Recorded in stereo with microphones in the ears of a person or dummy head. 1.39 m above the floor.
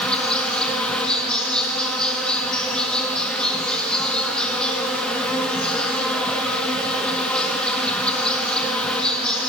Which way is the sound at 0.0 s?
5° left (ahead or behind).